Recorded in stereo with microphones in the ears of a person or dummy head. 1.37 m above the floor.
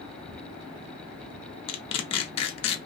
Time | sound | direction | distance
1.7 | tearing paper | 30° left (ahead or behind) | 0.6 m